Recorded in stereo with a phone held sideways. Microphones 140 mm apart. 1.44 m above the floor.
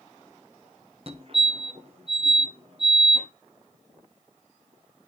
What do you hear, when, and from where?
1.1 s a fire alarm: 40° right (ahead or behind), 1.1 m